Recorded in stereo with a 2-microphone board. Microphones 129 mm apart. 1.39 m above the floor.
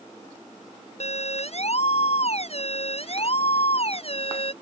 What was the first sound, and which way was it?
A siren, 55° left (ahead or behind).